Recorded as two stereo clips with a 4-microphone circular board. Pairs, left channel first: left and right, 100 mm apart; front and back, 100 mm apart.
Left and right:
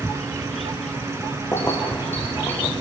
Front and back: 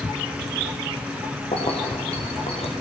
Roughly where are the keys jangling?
Ahead.